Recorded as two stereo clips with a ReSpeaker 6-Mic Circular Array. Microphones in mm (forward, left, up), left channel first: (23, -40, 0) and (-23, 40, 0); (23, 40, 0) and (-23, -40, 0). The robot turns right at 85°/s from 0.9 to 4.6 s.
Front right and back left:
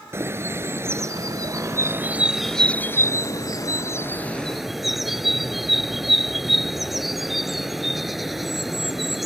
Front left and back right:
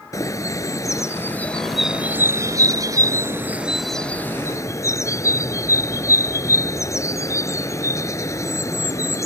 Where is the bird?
80° left; by 9.3 s 35° left.